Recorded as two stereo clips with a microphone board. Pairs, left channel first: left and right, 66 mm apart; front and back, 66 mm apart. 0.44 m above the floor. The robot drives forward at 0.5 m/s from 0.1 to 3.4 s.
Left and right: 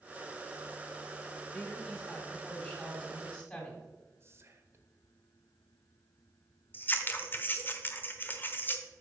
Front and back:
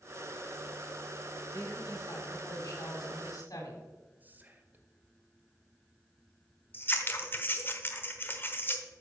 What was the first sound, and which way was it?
A woman speaking, 20° left.